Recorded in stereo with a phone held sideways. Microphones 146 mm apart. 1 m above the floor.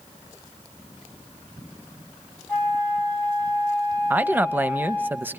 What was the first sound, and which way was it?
A flute, 10° left (ahead or behind).